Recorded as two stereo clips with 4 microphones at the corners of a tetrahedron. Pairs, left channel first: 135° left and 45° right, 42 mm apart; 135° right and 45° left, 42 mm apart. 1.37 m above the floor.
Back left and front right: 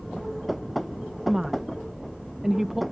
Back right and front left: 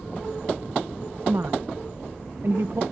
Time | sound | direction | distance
1.3 | a woman speaking | 35° left | ?